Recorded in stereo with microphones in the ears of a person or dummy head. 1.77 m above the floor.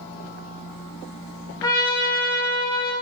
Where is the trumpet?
15° left (ahead or behind), 1.7 m.